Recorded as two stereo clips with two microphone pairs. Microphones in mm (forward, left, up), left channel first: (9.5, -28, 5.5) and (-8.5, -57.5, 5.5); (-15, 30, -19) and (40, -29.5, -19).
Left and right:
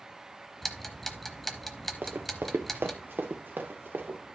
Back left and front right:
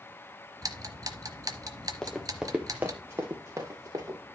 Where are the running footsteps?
145° right, 1.4 m; by 4.2 s 90° right, 3 m.